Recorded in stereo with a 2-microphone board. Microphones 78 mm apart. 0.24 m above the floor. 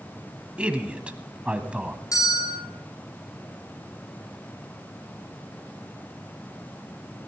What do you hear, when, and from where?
0.6 s a man speaking: 15° right (ahead or behind), 1.3 m
2.1 s a bell: 45° left (ahead or behind), 4.5 m